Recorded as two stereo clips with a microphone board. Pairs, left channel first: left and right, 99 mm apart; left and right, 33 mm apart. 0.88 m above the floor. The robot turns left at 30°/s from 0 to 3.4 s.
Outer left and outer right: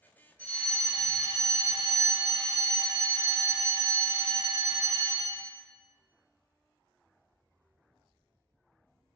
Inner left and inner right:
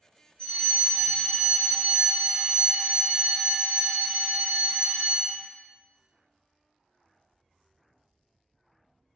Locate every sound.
0.4 s a fire alarm: 35° left, 1.6 m; by 5.5 s 55° right, 1.6 m